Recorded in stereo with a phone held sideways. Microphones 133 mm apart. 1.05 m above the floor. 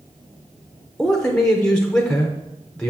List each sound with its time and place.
1.0 s a man speaking: 5° left (ahead or behind), 0.6 m